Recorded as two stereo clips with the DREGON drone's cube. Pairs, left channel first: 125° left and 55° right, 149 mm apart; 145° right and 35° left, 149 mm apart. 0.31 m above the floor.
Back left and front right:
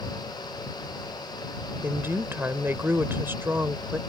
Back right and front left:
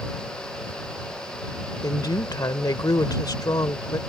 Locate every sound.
1.8 s a woman speaking: 115° right